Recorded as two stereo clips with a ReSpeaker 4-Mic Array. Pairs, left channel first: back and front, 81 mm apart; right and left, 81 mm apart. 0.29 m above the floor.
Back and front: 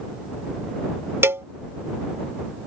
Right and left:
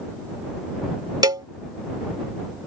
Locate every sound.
1.2 s a cowbell: 60° left